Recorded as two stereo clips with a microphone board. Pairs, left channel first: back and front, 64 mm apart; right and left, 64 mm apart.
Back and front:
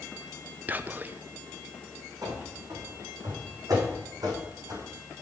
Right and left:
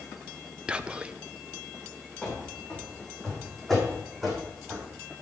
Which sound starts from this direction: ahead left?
Whispering, at 0.7 s.